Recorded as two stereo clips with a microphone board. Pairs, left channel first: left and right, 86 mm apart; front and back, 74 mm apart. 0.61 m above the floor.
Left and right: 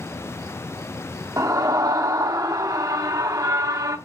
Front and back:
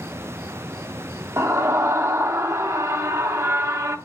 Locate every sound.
1.4 s a scream: 135° right, 0.9 m